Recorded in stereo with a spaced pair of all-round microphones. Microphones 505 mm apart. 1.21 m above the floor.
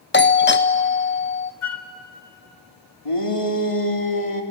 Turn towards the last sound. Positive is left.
turn(degrees=85)